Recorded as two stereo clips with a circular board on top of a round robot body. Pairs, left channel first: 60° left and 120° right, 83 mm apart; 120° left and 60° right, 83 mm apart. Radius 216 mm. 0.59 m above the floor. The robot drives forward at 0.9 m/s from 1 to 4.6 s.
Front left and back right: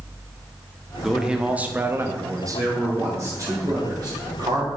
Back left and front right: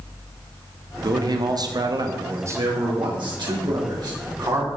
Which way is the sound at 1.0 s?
35° right.